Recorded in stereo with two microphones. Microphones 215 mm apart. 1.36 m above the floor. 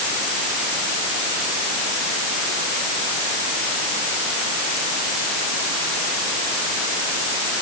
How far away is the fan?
I don't hear a fan.